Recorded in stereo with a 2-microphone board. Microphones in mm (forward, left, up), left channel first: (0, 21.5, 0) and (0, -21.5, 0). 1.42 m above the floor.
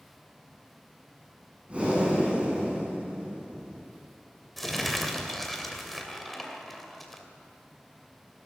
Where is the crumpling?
Centre (ahead or behind), 2.5 m.